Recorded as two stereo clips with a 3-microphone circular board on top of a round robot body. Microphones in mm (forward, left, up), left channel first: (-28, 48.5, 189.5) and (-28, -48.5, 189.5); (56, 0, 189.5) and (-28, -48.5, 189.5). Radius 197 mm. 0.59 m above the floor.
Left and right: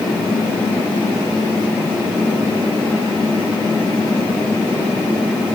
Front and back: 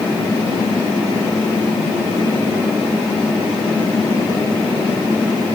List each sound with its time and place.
Only background noise.